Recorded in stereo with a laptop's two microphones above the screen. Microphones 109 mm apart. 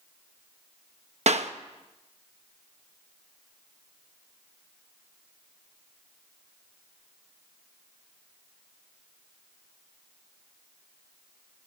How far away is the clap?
About 0.6 m.